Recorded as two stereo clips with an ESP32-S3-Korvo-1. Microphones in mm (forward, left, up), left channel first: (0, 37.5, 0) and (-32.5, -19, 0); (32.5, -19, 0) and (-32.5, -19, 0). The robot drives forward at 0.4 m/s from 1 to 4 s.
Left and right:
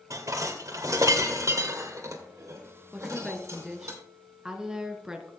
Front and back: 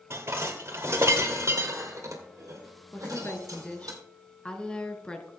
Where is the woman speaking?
30° right, 1.5 m; by 5.3 s 55° right, 1.3 m.